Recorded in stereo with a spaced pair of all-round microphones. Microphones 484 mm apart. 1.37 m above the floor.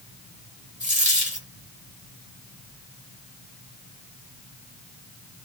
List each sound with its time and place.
0.8 s a dropped coin: 15° right (ahead or behind), 1.5 m